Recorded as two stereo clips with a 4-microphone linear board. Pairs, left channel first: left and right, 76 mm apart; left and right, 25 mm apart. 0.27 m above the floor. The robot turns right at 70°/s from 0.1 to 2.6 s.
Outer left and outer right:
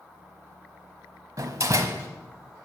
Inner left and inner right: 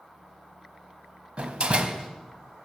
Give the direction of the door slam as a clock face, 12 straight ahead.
3 o'clock.